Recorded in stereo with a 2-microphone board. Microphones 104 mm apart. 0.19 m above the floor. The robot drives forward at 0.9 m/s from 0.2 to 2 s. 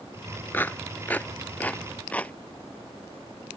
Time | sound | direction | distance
0.5 | a clap | 20° left (ahead or behind) | ?